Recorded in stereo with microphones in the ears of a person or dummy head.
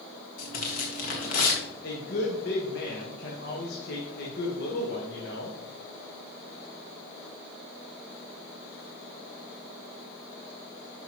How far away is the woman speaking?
About 1.6 m.